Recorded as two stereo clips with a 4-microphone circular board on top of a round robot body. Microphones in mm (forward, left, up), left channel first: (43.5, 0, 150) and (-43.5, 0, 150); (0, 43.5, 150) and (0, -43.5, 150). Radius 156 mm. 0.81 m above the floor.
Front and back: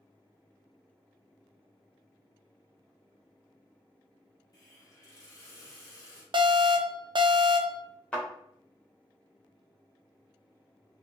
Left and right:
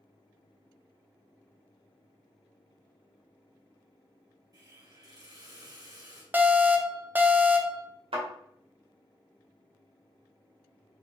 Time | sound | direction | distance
4.5 | a hiss | 45° right | 2 m
6.3 | an alarm | 160° right | 0.6 m
8.1 | a thud | 75° right | 1.6 m